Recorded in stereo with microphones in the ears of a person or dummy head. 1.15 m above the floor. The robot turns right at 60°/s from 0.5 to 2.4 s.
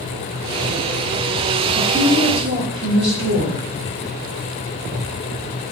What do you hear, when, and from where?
1.8 s a woman speaking: 150° right, 1.3 m; by 3.6 s 110° right, 1.3 m